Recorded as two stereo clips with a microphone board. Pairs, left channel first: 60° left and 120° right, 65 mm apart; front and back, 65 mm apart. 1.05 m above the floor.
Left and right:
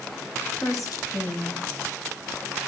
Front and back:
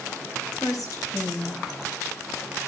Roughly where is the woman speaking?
Ahead left.